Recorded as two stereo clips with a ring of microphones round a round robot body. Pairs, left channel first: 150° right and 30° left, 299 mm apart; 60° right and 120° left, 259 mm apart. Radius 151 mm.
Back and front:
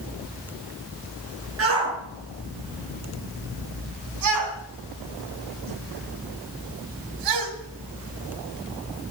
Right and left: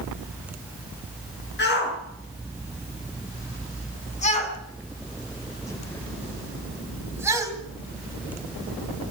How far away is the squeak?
No squeak in this recording.